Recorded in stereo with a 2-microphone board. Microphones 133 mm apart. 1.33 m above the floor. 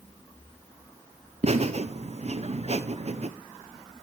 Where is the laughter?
55° right (ahead or behind), 0.6 m.